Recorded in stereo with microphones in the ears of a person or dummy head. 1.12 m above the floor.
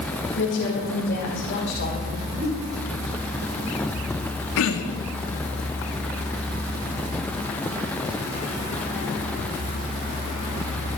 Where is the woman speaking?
55° left (ahead or behind), 5.5 m.